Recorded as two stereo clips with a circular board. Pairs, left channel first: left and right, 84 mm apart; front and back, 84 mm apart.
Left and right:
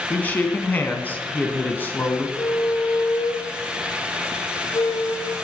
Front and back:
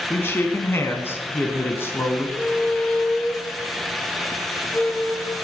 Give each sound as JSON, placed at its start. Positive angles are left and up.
{"t": 0.1, "sound": "a man speaking", "azimuth_deg": 40, "distance_m": 1.4}
{"t": 2.4, "sound": "a squeak", "azimuth_deg": 75, "distance_m": 1.2}